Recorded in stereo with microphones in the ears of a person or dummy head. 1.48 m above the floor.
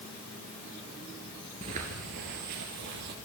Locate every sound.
1.6 s footsteps: 20° right (ahead or behind), 1.6 m; by 3.1 s 55° right (ahead or behind), 2.5 m